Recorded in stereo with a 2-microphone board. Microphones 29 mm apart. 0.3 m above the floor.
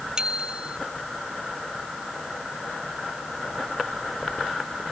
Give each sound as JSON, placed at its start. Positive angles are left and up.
{"t": 0.2, "sound": "a bicycle bell", "side_deg": -30}